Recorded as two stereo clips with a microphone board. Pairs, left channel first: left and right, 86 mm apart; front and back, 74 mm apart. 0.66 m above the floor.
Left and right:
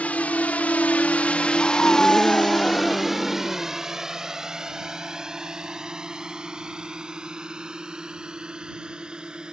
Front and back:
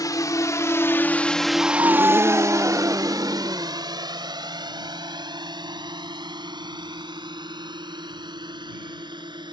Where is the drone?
20° left; by 9.5 s 170° right.